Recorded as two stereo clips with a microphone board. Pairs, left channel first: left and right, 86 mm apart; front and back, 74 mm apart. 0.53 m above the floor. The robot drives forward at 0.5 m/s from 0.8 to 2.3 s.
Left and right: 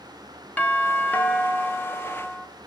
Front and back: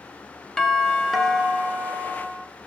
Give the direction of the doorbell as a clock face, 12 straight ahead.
10 o'clock.